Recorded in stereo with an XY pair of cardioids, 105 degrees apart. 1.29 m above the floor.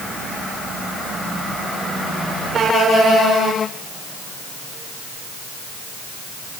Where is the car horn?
No car horn in this recording.